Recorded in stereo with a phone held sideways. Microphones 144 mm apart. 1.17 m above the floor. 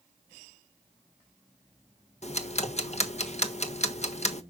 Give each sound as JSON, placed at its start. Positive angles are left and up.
{"t": 2.2, "sound": "ticking", "side_deg": 55, "distance_m": 1.3}